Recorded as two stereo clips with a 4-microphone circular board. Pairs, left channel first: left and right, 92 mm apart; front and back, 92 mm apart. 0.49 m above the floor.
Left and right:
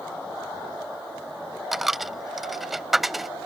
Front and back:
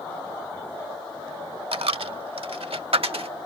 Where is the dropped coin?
Straight behind.